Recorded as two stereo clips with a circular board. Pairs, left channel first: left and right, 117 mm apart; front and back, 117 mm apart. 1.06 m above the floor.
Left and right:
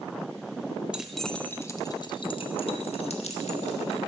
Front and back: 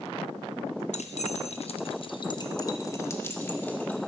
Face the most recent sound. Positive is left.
turn(degrees=75)